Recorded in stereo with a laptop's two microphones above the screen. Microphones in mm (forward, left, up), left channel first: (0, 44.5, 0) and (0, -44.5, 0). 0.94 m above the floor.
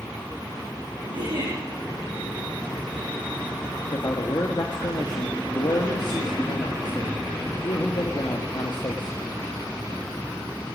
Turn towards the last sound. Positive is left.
turn(degrees=55)  # may be behind; listen again after turning